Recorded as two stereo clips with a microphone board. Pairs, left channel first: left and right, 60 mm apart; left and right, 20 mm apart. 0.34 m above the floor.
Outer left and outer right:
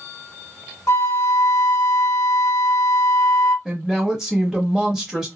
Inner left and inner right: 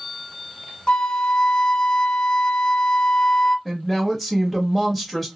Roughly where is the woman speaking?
Centre.